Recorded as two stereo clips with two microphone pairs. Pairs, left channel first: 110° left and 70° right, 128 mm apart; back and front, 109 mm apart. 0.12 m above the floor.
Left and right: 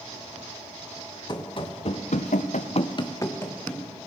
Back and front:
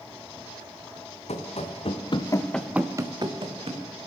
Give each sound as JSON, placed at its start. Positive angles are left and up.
{"t": 1.3, "sound": "running footsteps", "azimuth_deg": 165, "distance_m": 1.8}